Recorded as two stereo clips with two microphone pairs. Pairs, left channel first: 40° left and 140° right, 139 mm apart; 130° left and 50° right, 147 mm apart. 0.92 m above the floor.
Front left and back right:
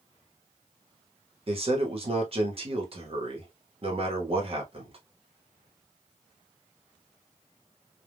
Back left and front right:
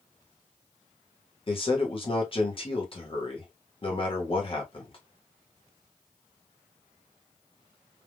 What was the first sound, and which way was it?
A man speaking, 175° left.